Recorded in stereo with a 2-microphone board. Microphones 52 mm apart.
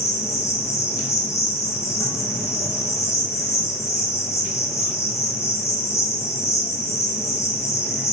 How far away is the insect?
About 0.9 m.